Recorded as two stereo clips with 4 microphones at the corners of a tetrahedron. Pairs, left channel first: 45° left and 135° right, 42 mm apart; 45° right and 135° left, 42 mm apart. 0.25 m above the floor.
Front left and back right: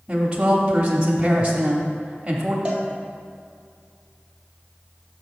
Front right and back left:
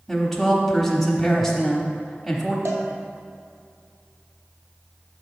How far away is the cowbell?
About 1.4 m.